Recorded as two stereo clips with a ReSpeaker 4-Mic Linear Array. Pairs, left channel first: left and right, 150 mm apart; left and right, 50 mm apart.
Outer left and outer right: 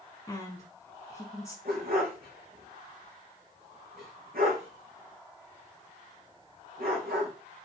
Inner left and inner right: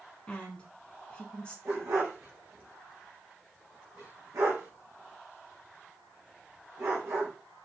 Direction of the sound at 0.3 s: 20° left (ahead or behind).